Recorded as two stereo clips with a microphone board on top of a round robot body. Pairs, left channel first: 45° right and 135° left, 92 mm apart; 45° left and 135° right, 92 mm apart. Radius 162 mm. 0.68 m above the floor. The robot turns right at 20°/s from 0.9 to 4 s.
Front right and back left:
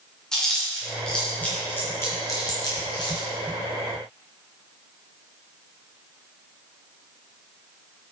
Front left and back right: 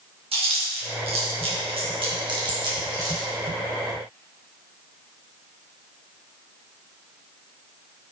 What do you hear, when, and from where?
0.3 s chewing: 130° right, 2.5 m; by 3.3 s 80° right, 2.5 m